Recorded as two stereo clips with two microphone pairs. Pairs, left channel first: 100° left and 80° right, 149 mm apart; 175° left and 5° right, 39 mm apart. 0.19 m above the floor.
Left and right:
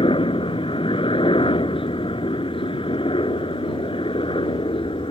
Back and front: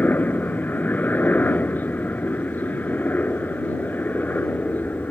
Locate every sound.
0.0 s a helicopter: 145° left